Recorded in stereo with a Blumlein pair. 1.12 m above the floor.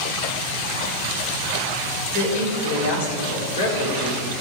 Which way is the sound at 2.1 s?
60° left.